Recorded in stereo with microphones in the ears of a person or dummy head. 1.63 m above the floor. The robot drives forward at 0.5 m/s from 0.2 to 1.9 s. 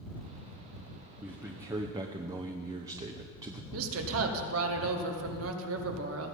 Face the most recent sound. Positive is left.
turn(degrees=-85)